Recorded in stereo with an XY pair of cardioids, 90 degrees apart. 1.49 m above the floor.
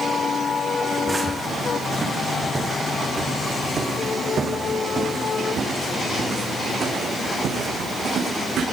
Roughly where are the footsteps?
Ahead.